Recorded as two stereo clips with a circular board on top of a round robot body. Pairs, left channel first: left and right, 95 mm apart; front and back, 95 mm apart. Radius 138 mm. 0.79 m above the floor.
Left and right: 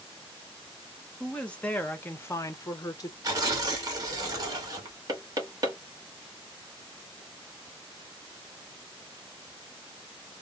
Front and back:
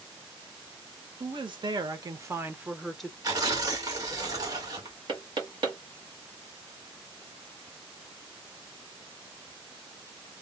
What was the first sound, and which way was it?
A woman speaking, 170° left.